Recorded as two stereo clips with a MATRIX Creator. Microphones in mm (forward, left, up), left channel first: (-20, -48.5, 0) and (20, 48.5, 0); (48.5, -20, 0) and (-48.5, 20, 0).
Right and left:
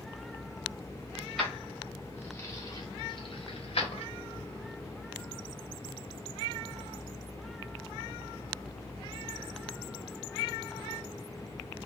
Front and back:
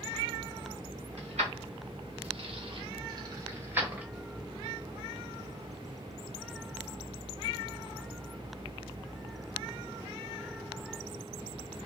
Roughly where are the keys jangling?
Behind left.